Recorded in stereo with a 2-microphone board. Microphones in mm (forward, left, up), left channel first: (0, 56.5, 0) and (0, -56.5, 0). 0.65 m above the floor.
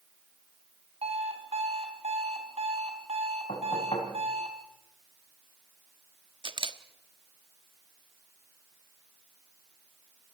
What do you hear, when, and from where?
1.0 s an alarm clock: 65° right (ahead or behind), 3 m
3.5 s knocking: 65° left (ahead or behind), 5 m
6.4 s a camera shutter: 45° right (ahead or behind), 1.3 m